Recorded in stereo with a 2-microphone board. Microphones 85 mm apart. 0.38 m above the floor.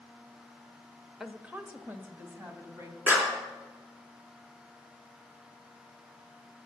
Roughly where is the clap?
Centre.